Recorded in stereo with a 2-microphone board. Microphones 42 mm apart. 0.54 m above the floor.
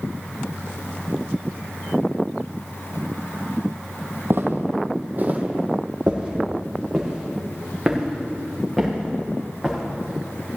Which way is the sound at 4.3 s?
65° right (ahead or behind).